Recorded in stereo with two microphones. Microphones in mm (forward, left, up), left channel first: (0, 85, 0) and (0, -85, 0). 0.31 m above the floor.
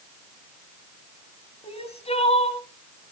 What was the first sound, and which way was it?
Crying, 35° left (ahead or behind).